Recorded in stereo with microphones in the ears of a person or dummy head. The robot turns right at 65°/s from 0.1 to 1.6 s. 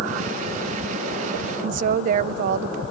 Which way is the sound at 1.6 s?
50° right (ahead or behind).